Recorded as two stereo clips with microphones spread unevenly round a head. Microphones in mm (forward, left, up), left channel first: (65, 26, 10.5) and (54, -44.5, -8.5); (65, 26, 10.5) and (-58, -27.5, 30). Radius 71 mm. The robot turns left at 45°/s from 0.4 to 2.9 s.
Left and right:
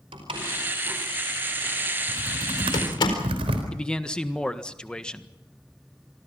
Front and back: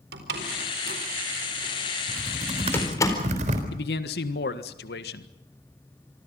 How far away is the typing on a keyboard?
About 4 m.